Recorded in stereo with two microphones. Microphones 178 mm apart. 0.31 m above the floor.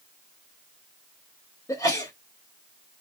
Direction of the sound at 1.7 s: 20° left (ahead or behind).